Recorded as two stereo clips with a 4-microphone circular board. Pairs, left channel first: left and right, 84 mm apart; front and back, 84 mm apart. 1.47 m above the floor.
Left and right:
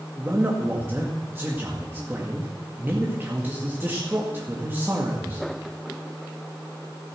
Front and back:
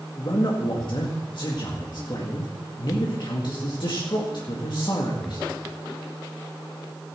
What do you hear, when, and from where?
0.2 s a man speaking: 25° right, 1.9 m